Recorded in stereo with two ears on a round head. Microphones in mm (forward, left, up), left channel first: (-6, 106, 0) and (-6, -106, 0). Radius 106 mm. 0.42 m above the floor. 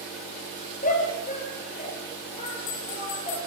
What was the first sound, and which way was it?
A shout, 35° left (ahead or behind).